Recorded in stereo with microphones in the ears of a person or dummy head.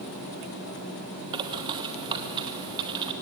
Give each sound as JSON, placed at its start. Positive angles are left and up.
{"t": 1.3, "sound": "a bird", "side_deg": -30, "distance_m": 2.0}